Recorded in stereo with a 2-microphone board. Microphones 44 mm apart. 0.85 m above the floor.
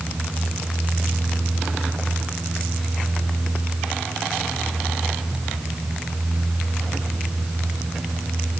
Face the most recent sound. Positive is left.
No sound to turn to.